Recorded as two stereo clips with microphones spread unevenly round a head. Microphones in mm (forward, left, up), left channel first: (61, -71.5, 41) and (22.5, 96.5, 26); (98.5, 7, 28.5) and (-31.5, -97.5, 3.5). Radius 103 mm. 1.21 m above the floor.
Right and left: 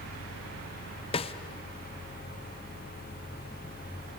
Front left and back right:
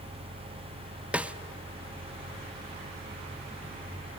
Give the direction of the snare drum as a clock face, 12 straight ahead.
2 o'clock.